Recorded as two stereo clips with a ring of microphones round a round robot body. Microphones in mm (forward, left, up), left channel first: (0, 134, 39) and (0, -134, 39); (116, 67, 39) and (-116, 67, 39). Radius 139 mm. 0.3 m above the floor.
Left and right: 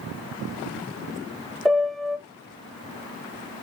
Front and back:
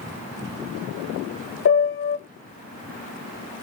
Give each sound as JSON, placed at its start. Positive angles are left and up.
{"t": 1.6, "sound": "a piano", "azimuth_deg": 0, "distance_m": 0.6}